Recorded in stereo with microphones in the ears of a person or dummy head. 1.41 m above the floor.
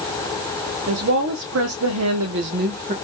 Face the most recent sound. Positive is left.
turn(degrees=-45)  # may be behind; listen again after turning